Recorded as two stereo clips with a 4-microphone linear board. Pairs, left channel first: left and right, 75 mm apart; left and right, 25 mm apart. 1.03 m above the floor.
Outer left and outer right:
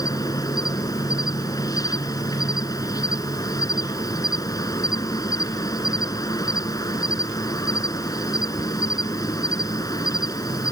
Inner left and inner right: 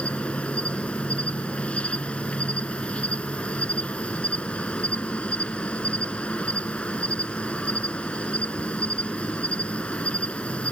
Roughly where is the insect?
Left.